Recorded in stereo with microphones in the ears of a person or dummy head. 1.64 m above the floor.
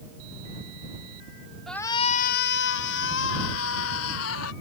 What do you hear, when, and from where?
1.7 s a shout: centre (ahead or behind); by 4.5 s 85° left